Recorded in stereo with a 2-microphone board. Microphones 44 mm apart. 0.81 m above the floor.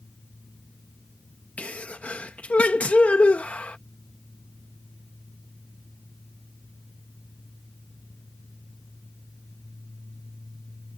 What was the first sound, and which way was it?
A sneeze, 30° left (ahead or behind).